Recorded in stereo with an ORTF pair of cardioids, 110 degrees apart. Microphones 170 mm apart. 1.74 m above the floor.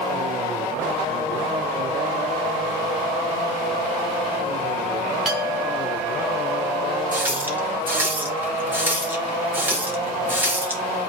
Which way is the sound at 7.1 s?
10° right.